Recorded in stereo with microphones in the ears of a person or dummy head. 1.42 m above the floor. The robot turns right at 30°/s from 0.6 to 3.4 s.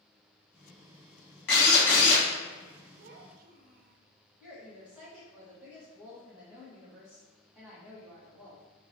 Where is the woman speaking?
5° right (ahead or behind), 1.8 m.